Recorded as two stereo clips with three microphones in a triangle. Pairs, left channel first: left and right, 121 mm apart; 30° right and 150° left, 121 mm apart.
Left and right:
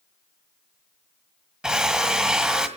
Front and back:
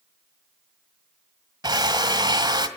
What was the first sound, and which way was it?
A drill, 170° right.